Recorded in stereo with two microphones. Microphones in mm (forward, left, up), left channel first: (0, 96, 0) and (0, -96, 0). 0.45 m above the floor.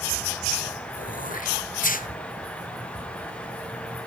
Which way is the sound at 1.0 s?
45° left (ahead or behind).